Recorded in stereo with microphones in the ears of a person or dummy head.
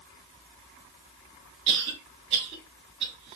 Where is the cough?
25° right (ahead or behind), 2.5 m.